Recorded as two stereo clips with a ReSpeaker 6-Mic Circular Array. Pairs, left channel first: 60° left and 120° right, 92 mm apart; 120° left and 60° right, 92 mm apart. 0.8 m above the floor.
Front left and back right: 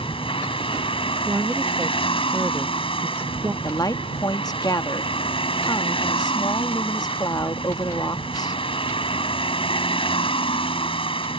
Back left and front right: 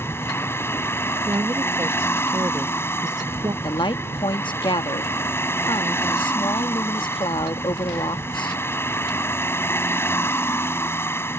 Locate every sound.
0.0 s a vehicle: 55° left
1.2 s a woman speaking: 65° right
3.6 s a woman speaking: 95° left